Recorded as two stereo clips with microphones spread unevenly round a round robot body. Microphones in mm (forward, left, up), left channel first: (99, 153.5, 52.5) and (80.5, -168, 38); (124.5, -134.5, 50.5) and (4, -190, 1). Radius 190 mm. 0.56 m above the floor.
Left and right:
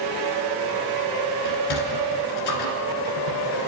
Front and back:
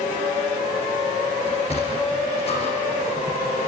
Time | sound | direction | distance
1.4 | a sliding door | 120° left | 2 m